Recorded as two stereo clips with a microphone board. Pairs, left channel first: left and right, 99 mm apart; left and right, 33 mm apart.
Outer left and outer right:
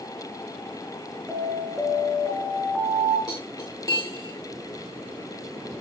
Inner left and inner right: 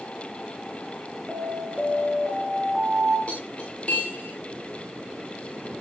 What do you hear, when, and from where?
1.3 s an alarm: 5° right (ahead or behind), 2.5 m
3.3 s cutlery clinking: 40° left (ahead or behind), 6 m